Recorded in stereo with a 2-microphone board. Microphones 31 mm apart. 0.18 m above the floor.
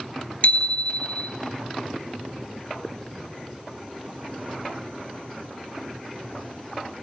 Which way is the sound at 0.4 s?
45° left (ahead or behind).